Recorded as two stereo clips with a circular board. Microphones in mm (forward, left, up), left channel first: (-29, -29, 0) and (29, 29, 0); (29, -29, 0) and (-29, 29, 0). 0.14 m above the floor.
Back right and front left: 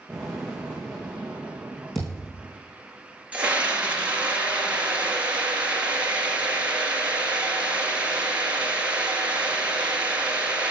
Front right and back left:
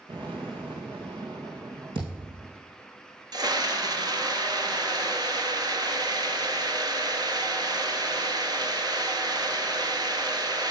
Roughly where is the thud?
Behind left.